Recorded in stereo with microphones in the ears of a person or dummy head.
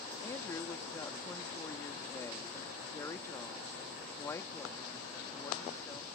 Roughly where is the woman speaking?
Left.